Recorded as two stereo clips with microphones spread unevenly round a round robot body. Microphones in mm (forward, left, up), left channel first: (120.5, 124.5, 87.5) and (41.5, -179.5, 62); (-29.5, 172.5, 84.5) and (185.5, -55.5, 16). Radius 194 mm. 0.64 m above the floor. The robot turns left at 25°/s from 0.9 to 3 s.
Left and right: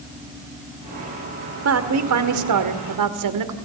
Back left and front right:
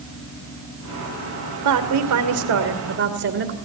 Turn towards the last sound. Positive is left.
turn(degrees=-100)